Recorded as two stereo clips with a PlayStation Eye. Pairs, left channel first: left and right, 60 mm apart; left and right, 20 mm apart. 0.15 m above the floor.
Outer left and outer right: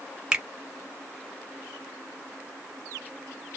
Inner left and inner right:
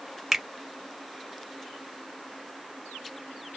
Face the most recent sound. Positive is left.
turn(degrees=-15)  # may be behind; listen again after turning